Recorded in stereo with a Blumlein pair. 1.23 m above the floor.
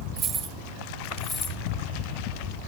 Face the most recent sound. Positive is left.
turn(degrees=20)